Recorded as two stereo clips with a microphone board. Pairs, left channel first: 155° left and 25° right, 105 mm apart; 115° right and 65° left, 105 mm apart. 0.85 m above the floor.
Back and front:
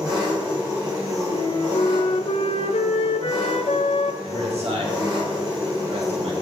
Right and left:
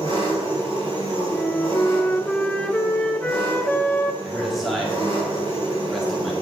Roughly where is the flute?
Behind.